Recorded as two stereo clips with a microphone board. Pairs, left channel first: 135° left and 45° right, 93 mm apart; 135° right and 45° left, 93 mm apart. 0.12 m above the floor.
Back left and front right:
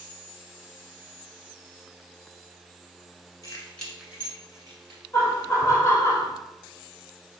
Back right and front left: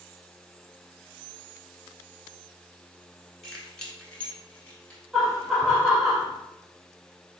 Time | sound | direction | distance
3.4 | keys jangling | 140° left | 1.1 m
5.1 | laughter | 130° left | 1.1 m